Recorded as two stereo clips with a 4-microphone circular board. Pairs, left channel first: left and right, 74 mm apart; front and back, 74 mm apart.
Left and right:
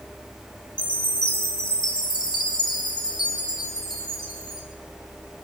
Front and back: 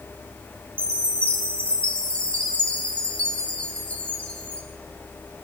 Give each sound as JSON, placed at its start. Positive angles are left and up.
{"t": 0.8, "sound": "a chime", "azimuth_deg": 75, "distance_m": 3.0}